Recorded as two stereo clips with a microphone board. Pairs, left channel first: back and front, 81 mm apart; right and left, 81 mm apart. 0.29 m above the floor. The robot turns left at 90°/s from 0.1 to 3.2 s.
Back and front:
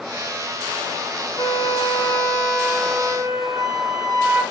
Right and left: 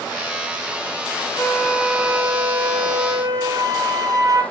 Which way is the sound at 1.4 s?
160° right.